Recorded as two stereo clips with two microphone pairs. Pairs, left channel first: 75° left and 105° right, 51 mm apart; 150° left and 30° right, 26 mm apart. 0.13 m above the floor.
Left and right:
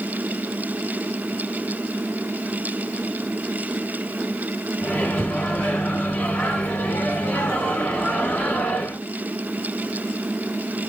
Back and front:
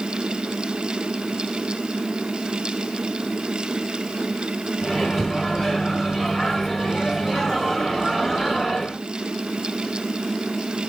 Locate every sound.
4.8 s a microwave: 60° left, 1.2 m